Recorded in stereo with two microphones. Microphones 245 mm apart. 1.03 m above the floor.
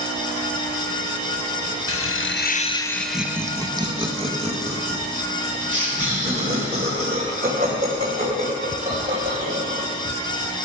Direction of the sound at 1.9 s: 65° left (ahead or behind).